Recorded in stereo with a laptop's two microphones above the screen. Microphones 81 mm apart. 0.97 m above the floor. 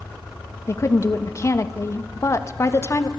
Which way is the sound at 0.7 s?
35° left (ahead or behind).